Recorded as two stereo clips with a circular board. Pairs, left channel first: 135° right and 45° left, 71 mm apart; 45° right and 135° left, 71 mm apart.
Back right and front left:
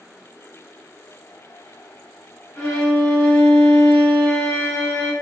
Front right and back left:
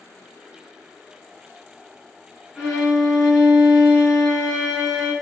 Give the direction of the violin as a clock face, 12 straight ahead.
5 o'clock.